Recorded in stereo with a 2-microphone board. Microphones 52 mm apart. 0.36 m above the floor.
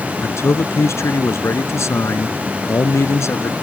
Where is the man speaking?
75° left (ahead or behind).